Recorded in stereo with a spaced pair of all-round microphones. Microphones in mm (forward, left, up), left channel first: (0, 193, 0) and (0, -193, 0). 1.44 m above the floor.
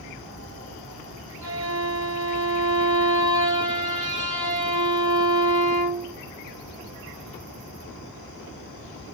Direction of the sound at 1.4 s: 70° right (ahead or behind).